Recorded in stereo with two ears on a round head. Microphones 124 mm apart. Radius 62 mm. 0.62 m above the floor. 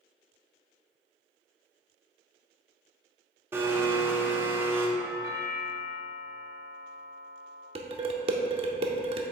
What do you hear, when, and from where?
3.5 s a blender: 15° right (ahead or behind), 0.9 m
5.0 s a doorbell: 25° right (ahead or behind), 1.6 m
7.8 s dishes clattering: 40° right (ahead or behind), 0.7 m